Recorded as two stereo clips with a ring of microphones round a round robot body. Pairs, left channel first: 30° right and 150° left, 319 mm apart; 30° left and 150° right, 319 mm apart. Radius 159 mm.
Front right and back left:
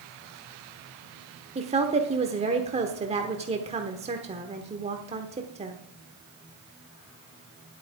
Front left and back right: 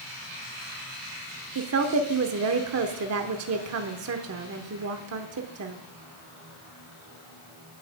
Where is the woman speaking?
150° right, 1.0 m.